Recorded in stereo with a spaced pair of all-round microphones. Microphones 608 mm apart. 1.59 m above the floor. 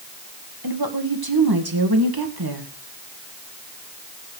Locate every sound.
0.6 s a woman speaking: 35° right (ahead or behind), 1.9 m